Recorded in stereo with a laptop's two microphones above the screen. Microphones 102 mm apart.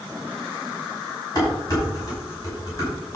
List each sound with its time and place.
1.4 s dishes clattering: 35° left (ahead or behind), 5 m